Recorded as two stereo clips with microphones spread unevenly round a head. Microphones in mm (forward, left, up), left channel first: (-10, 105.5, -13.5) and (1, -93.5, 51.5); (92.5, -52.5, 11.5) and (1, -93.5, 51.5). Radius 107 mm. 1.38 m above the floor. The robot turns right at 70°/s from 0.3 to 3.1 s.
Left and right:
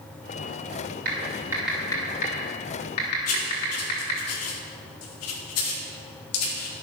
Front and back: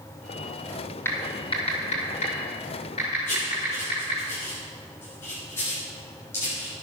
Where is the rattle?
I don't hear a rattle.